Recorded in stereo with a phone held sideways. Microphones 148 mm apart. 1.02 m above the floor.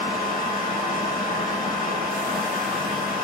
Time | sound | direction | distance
0.0 | a fan | 70° left (ahead or behind) | 3 m